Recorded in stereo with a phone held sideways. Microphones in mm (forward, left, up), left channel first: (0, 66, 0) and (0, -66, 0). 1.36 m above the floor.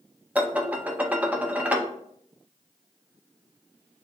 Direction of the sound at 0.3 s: 10° right (ahead or behind).